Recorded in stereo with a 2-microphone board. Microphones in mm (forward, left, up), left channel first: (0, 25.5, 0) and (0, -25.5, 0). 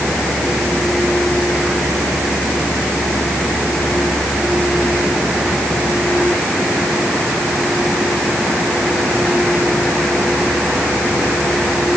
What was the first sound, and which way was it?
Only background noise.